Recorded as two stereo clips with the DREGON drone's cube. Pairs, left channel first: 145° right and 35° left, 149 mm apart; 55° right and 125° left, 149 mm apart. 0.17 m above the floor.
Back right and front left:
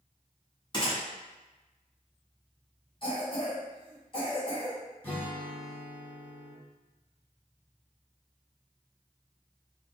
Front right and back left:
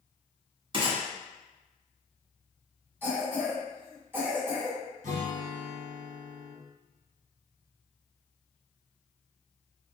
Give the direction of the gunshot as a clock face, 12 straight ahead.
6 o'clock.